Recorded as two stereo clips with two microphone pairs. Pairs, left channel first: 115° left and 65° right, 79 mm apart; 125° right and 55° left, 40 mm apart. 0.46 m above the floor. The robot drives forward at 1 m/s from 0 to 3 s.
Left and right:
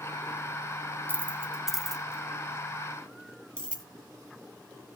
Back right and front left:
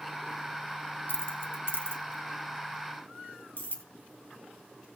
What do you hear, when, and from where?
1.1 s keys jangling: 120° right, 0.8 m; by 3.8 s 165° right, 2.5 m